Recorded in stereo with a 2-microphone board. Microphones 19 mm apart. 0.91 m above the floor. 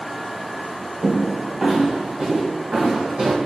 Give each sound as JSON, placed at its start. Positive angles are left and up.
{"t": 1.0, "sound": "footsteps", "side_deg": -15, "distance_m": 0.9}